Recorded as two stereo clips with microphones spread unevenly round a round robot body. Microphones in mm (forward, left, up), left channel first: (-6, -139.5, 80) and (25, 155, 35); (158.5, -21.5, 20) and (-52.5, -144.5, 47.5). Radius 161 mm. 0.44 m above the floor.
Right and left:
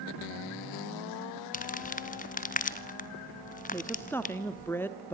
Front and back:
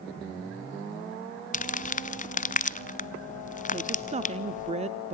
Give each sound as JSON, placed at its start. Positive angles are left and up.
{"t": 1.5, "sound": "crumpling", "azimuth_deg": -35, "distance_m": 0.7}
{"t": 3.7, "sound": "a woman speaking", "azimuth_deg": 170, "distance_m": 1.0}